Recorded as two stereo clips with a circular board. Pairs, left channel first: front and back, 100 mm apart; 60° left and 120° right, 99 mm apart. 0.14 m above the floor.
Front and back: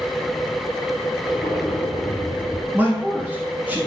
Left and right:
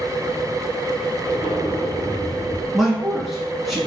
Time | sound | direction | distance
1.2 | an explosion | 40° left | 1.4 m
2.7 | a man speaking | 150° left | 1.0 m